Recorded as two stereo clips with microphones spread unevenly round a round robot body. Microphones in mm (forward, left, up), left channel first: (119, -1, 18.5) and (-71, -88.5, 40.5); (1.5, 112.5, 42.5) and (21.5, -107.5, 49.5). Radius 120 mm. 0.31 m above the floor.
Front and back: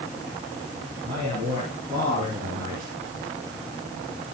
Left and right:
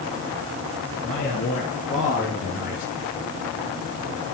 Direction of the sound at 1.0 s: 150° left.